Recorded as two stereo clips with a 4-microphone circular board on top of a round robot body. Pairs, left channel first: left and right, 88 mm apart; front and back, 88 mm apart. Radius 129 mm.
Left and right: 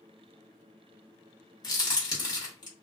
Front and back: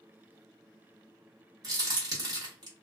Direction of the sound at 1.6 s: 130° left.